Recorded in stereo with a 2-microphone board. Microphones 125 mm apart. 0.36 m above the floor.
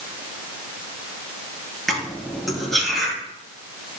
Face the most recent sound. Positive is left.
turn(degrees=0)  # may be behind; listen again after turning